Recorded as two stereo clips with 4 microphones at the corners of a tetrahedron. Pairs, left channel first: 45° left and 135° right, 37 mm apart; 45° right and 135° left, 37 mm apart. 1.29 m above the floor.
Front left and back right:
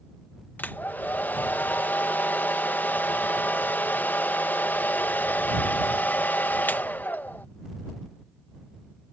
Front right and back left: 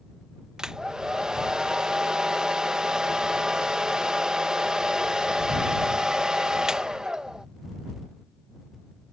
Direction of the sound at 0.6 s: 65° left.